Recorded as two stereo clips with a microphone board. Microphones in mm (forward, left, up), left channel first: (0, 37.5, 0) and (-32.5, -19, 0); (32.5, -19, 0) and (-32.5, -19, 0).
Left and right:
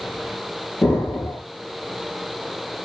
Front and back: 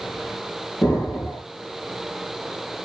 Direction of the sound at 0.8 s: 25° left.